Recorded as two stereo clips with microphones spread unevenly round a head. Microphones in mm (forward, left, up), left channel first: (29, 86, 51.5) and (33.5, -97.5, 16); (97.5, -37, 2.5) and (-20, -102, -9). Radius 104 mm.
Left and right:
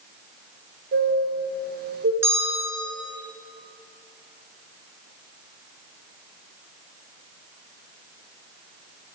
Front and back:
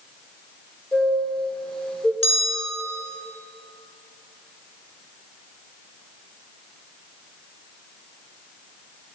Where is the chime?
55° right, 4.5 m.